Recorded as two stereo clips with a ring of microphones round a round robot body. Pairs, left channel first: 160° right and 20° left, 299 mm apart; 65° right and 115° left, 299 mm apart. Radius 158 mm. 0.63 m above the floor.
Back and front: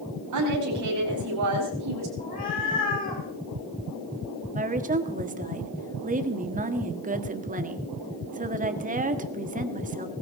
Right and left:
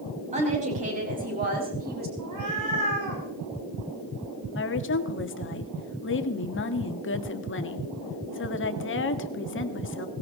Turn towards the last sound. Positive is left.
turn(degrees=-35)